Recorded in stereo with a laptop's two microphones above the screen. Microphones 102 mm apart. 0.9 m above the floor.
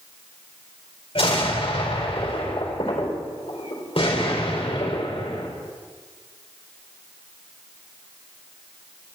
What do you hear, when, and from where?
1.1 s an explosion: 65° left (ahead or behind), 4 m